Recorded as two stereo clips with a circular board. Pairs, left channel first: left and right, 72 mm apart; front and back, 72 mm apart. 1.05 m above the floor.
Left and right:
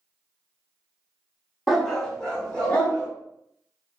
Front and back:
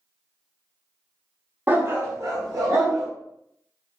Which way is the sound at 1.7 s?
Straight behind.